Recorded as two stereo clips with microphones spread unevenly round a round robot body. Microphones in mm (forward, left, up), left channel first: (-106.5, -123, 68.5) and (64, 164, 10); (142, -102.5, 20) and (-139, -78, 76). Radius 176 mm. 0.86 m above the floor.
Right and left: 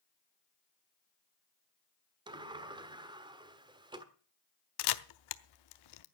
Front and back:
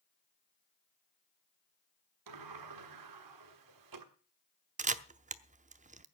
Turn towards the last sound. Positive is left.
turn(degrees=-125)